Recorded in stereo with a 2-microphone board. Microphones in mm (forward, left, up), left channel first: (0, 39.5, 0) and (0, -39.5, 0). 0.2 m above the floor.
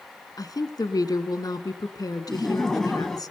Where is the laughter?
5° left (ahead or behind), 1.4 m.